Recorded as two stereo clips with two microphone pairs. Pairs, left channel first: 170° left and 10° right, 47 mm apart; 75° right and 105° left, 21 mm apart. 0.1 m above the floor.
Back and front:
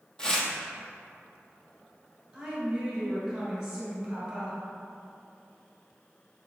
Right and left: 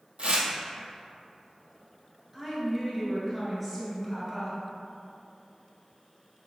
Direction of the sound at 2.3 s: 55° left.